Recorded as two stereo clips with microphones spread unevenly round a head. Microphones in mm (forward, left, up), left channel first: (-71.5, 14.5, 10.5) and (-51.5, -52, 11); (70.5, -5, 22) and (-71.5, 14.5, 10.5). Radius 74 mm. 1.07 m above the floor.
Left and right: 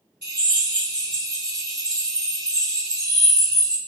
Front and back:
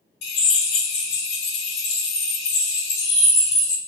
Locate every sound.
0.2 s a drill: 10° left, 2.0 m